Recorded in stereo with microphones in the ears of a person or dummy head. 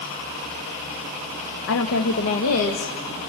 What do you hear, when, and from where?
1.7 s a woman speaking: 70° left (ahead or behind), 1.1 m; by 3.0 s 85° left, 2 m